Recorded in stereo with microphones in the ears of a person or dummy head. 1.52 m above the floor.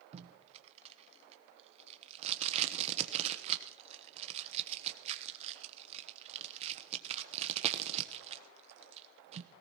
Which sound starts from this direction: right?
Tape being pulled, at 0.1 s.